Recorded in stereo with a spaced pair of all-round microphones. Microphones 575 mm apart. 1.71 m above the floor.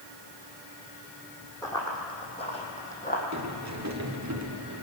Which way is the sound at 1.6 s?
5° left (ahead or behind).